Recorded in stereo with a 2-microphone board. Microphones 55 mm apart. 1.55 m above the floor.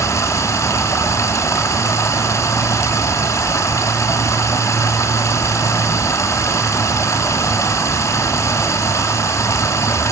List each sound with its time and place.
0.0 s running water: 60° left (ahead or behind), 3.5 m